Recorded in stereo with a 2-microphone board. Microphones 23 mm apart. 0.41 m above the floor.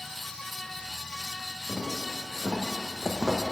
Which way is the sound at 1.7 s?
30° right (ahead or behind).